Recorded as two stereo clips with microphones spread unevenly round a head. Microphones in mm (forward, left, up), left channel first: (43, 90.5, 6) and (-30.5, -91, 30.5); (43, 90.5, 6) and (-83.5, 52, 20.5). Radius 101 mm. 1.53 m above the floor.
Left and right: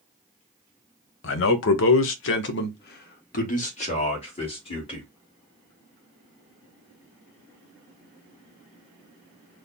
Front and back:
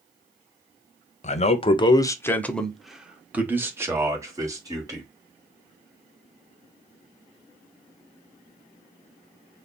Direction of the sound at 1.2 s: 45° left.